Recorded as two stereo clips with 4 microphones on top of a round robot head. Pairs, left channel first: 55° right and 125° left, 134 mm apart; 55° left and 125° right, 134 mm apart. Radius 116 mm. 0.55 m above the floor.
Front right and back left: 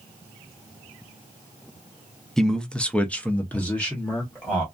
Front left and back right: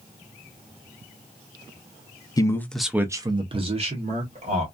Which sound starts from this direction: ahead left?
A man speaking, at 2.4 s.